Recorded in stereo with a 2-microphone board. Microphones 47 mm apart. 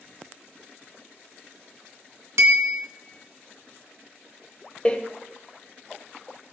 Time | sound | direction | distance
2.4 | a bell | 70° right (ahead or behind) | 2.5 m
4.8 | a door slam | 20° left (ahead or behind) | 1.2 m